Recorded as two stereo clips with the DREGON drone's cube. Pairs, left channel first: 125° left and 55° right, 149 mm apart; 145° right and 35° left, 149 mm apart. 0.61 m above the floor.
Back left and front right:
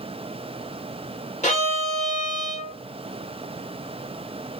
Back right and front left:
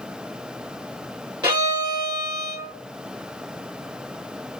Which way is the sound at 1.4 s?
90° left.